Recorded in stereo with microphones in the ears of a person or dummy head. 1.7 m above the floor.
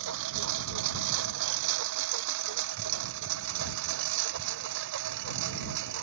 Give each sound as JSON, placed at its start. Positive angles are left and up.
{"t": 0.0, "sound": "a lawn mower", "side_deg": -75}